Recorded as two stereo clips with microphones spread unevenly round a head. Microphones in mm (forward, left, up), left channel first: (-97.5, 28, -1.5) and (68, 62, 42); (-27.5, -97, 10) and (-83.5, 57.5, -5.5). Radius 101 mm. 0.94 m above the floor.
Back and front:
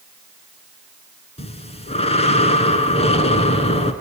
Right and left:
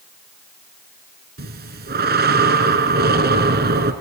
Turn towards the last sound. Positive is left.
turn(degrees=135)